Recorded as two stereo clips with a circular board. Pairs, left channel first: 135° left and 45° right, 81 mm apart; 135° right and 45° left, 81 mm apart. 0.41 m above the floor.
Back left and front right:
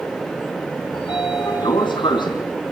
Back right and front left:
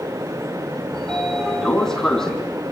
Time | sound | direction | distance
0.9 | a sliding door | 140° left | 4 m